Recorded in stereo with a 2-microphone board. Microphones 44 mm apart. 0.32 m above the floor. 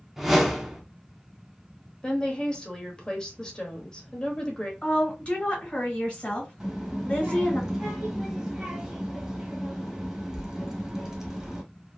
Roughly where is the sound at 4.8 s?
Left.